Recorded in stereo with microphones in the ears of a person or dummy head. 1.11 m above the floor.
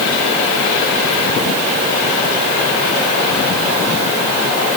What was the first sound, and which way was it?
Only background noise.